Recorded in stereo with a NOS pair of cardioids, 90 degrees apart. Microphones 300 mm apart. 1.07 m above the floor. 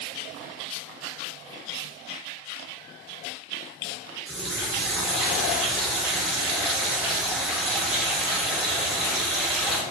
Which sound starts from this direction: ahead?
A running tap, at 4.3 s.